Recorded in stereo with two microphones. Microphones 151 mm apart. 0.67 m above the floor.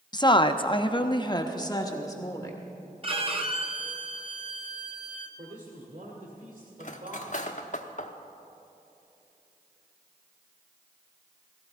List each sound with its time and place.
0.1 s a woman speaking: 25° left (ahead or behind), 0.6 m; by 2.6 s 20° left (ahead or behind), 1.7 m
3.0 s a violin: 40° right (ahead or behind), 0.9 m
5.4 s a man speaking: 60° right (ahead or behind), 2 m
6.8 s cutlery clinking: 55° left (ahead or behind), 0.8 m